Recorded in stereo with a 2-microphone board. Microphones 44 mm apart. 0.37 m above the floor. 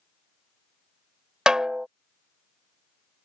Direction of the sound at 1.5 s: 15° right (ahead or behind).